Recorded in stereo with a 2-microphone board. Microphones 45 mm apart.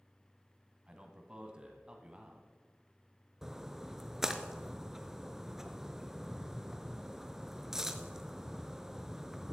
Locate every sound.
0.9 s a man speaking: 20° right (ahead or behind), 1.5 m
3.4 s a splash: 10° right (ahead or behind), 0.7 m